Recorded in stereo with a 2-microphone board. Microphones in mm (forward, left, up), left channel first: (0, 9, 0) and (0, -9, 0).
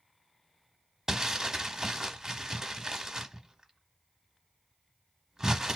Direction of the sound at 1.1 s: 25° right (ahead or behind).